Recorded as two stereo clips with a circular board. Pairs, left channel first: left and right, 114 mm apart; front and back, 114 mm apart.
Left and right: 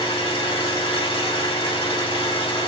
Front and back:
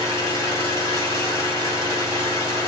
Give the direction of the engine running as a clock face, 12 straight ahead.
10 o'clock.